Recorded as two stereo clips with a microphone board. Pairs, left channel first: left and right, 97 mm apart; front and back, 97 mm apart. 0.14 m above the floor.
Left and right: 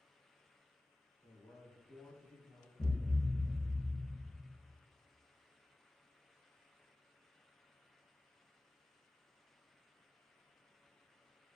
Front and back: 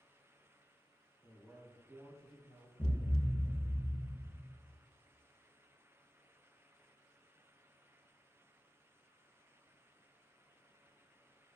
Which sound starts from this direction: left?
A man speaking, at 1.2 s.